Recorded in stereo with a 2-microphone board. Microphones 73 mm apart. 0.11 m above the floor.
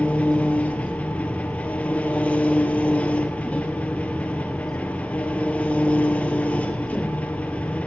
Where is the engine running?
20° left (ahead or behind), 1.1 m.